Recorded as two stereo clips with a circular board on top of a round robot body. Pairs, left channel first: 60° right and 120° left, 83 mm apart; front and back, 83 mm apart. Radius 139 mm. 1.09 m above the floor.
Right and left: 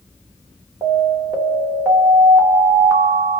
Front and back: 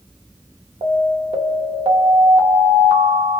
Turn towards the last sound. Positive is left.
turn(degrees=-175)